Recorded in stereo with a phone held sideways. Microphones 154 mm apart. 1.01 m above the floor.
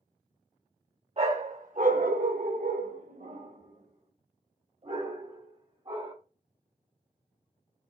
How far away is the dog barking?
About 1.1 m.